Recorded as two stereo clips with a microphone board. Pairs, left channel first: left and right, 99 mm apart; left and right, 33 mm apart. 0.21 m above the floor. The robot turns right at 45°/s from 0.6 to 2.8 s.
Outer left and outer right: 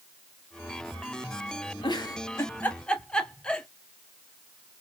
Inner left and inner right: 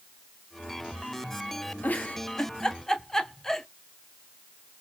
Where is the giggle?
55° left (ahead or behind), 0.8 m; by 3.7 s 10° left (ahead or behind), 0.8 m.